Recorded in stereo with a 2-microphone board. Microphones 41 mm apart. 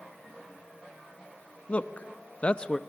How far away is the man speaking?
About 1.2 m.